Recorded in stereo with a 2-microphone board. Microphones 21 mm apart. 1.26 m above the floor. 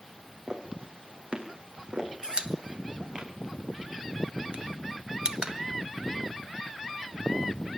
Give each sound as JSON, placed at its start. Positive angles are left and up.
{"t": 0.5, "sound": "footsteps", "side_deg": -70, "distance_m": 3.5}
{"t": 2.2, "sound": "a pop", "side_deg": -45, "distance_m": 1.3}